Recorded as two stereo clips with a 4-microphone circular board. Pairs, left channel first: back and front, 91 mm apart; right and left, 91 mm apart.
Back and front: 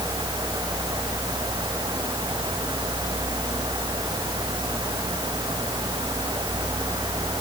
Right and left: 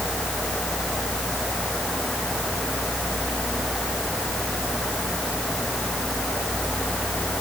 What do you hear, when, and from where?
Only background noise.